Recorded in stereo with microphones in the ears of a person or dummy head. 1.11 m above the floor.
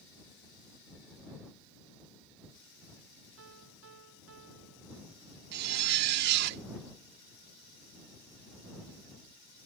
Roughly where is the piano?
Right.